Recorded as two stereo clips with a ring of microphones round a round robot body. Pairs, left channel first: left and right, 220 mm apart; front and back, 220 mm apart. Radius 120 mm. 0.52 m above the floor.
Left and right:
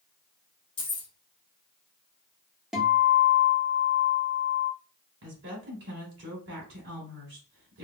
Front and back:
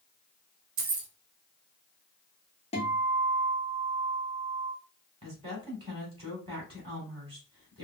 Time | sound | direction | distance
0.8 | keys jangling | 155° left | 0.8 m
2.7 | a guitar | 5° right | 1.2 m
5.2 | a woman speaking | 115° right | 2 m